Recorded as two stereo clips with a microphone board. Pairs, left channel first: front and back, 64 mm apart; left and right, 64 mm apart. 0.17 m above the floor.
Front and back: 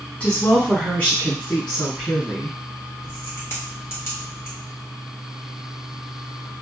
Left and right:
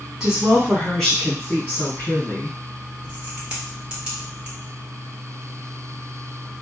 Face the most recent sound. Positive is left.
turn(degrees=-20)